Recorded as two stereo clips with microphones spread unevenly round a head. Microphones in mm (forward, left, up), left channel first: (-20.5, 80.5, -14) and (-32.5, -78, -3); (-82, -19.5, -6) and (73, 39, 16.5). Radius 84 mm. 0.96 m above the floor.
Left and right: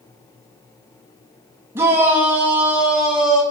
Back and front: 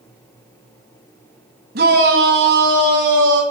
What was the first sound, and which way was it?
A shout, 15° right.